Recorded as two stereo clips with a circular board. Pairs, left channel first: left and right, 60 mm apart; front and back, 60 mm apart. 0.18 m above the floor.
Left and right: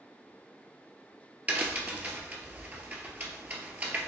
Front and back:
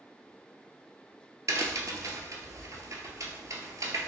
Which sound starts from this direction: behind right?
A crack, at 1.5 s.